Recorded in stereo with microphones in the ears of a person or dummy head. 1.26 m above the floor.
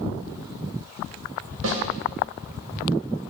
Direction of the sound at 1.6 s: 75° right (ahead or behind).